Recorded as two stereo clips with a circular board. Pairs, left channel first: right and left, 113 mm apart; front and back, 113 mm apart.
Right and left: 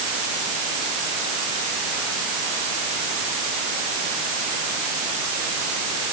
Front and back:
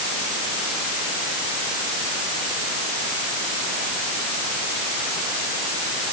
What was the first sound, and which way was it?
Only background noise.